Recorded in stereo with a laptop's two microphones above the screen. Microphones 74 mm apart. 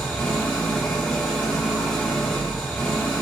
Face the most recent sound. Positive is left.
turn(degrees=15)  # may be behind; listen again after turning